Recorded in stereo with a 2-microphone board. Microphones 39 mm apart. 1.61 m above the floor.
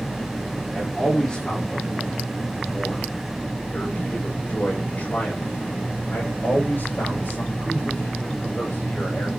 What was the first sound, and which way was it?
A man speaking, 15° left (ahead or behind).